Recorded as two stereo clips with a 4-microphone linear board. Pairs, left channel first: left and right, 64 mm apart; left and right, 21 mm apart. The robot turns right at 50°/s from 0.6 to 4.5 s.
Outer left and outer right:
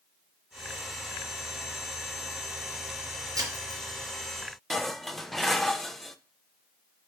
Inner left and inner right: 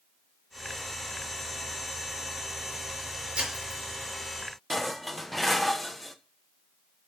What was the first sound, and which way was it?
Breaking glass, 55° right (ahead or behind).